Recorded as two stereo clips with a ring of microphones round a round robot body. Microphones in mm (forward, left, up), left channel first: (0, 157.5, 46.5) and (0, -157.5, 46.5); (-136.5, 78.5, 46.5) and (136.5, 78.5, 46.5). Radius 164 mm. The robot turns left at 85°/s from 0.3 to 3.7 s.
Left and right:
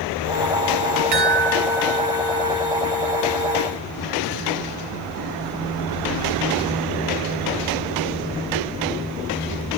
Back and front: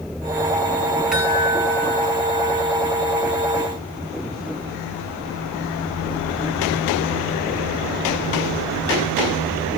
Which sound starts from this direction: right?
A chime, at 1.1 s.